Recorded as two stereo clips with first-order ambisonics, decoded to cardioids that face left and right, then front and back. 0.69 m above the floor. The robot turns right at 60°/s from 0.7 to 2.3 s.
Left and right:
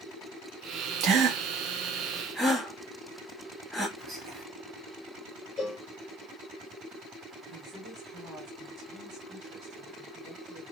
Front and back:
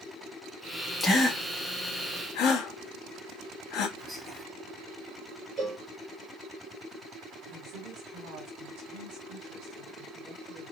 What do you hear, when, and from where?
1.0 s a gasp: 80° right, 0.8 m; by 3.9 s 5° right, 0.8 m
4.0 s whispering: 80° right, 1.0 m
5.6 s a cowbell: 160° left, 1.5 m
7.5 s a woman speaking: straight behind, 1.9 m